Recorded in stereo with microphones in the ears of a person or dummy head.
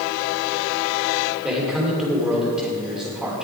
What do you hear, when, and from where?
1.4 s a man speaking: 5° right (ahead or behind), 3.5 m